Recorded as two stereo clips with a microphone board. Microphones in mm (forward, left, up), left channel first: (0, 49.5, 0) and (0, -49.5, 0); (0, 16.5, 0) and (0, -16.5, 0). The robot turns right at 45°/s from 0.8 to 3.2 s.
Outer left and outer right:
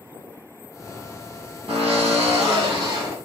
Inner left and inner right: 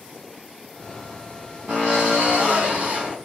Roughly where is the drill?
Right.